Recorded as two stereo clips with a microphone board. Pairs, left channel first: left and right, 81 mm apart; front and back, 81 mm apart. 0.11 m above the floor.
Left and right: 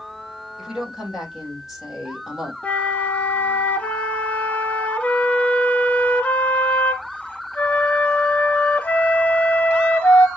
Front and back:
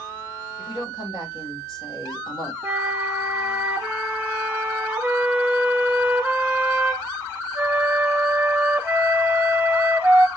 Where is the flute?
135° left, 1.1 m.